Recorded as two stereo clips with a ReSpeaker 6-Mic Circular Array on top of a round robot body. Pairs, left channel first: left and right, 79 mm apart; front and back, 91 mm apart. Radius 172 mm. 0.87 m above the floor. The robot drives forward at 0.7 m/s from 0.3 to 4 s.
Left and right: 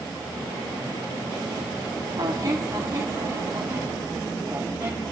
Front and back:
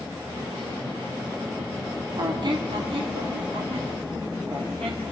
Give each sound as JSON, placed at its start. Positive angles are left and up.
{"t": 2.2, "sound": "a squeak", "azimuth_deg": -130, "distance_m": 0.9}